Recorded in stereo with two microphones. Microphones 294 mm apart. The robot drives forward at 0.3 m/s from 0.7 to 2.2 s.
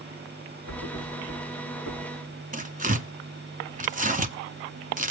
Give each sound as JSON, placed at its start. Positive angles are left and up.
{"t": 0.7, "sound": "a thud", "side_deg": -75, "distance_m": 5.5}
{"t": 2.5, "sound": "tearing paper", "side_deg": -25, "distance_m": 1.1}